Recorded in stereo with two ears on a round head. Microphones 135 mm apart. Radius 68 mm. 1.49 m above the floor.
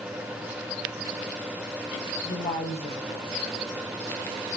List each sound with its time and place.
2.2 s a woman speaking: 20° left (ahead or behind), 6.5 m